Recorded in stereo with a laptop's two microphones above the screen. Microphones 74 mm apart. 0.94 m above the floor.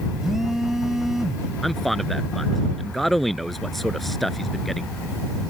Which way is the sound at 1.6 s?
Centre (ahead or behind).